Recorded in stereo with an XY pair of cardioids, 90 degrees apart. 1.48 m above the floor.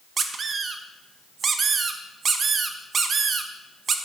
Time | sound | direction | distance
0.2 | a squeak | 55° right | 1.3 m